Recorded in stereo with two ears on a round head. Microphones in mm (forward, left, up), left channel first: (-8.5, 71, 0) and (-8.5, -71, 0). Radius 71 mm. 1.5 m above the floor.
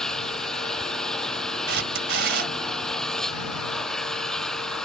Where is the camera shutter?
75° right (ahead or behind).